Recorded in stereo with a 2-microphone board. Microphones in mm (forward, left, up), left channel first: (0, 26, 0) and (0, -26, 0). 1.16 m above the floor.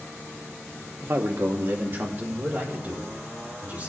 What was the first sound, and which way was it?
A man speaking, 50° right (ahead or behind).